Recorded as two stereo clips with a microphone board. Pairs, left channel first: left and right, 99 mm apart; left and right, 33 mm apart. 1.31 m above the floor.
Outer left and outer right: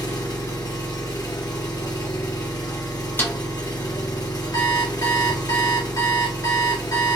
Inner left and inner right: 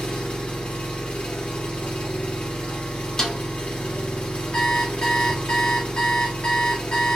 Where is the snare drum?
20° left (ahead or behind), 0.6 m.